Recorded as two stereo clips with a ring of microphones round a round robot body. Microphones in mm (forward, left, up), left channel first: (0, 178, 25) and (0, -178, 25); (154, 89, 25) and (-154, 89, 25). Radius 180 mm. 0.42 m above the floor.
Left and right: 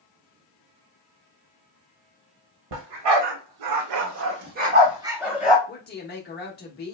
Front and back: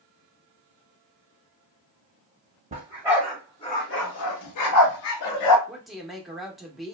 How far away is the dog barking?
About 0.9 m.